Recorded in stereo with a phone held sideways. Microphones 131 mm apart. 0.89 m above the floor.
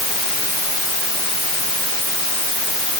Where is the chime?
No chime in this recording.